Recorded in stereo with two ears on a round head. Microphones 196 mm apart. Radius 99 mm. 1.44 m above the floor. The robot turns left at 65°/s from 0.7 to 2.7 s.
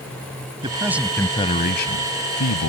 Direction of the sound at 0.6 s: 155° right.